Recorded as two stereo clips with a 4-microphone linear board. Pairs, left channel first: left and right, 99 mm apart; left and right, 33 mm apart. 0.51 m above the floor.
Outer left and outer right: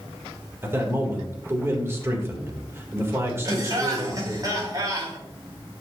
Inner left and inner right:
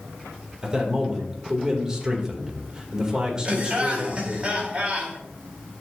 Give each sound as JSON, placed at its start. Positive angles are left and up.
{"t": 0.6, "sound": "a man speaking", "side_deg": -25, "distance_m": 1.9}
{"t": 3.5, "sound": "laughter", "side_deg": -40, "distance_m": 4.0}